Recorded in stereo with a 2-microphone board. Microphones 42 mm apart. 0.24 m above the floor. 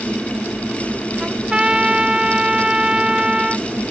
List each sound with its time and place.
1.2 s a trumpet: 20° right (ahead or behind)